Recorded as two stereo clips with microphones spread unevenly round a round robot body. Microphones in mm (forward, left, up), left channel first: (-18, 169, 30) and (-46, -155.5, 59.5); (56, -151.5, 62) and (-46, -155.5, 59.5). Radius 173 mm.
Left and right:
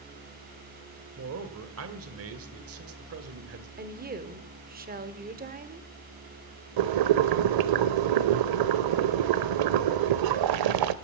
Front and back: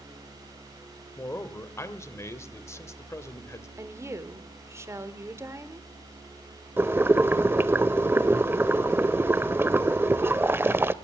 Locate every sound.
1.2 s a man speaking: 55° right, 1.3 m
3.8 s a woman speaking: 140° right, 1.2 m
6.8 s boiling: 110° right, 0.7 m